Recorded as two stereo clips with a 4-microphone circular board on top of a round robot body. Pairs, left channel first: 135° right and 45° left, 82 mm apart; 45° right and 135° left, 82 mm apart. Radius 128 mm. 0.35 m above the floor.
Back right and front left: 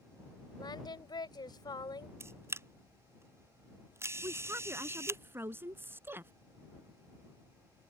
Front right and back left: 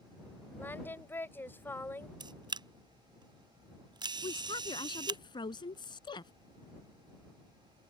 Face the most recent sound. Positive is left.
turn(degrees=-20)